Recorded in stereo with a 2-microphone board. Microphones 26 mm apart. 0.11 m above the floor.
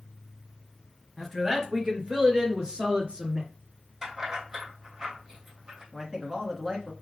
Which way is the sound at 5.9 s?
20° right (ahead or behind).